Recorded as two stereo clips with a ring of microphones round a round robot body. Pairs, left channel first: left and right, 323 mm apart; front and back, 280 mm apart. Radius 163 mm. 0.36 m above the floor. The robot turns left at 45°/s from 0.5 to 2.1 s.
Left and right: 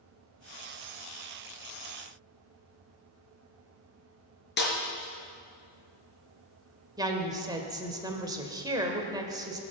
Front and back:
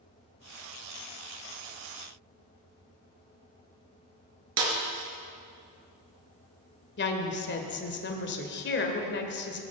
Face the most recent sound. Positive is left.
turn(degrees=-20)